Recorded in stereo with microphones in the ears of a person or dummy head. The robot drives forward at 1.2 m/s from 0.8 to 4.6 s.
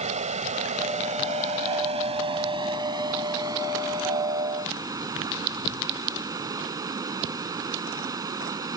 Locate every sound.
0.0 s running water: 35° right (ahead or behind); by 8.8 s 15° right (ahead or behind)